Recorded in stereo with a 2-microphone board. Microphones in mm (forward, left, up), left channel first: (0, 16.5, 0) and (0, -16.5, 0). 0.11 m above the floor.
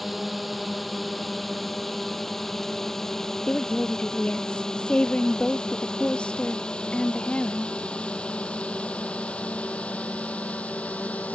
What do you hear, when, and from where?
0.0 s a drone: centre (ahead or behind); by 11.3 s 45° left (ahead or behind)
3.5 s a woman speaking: 35° left (ahead or behind)